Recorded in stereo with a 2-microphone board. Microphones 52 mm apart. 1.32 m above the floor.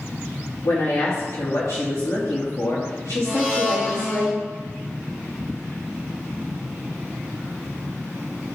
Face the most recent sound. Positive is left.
turn(degrees=35)  # may be behind; listen again after turning